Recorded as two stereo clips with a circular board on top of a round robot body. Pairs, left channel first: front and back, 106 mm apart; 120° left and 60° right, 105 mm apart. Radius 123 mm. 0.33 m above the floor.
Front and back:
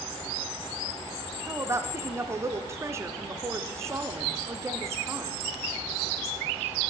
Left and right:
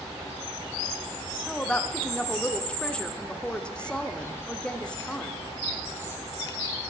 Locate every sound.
1.5 s a woman speaking: 170° right, 0.9 m